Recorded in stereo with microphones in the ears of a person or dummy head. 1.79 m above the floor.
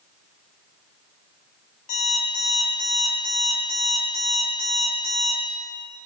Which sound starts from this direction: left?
An alarm clock, at 1.9 s.